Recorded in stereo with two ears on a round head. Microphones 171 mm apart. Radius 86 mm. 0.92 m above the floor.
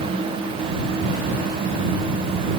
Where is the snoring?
No snoring in this recording.